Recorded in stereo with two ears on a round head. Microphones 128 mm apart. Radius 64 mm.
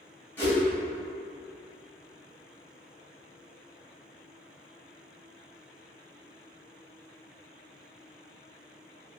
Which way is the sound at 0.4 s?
15° left (ahead or behind).